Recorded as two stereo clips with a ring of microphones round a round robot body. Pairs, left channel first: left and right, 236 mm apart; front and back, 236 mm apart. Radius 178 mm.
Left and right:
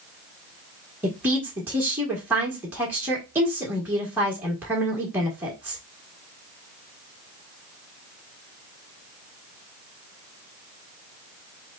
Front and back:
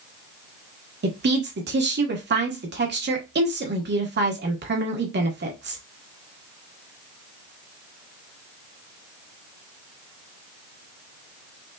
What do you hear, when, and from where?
1.0 s a woman speaking: 170° right, 1.4 m